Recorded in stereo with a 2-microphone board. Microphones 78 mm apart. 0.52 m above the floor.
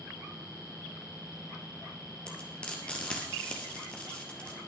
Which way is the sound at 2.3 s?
15° left (ahead or behind).